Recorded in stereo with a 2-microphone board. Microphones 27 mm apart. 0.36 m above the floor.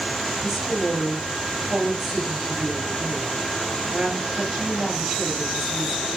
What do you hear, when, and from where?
0.4 s a woman speaking: 15° right (ahead or behind), 6 m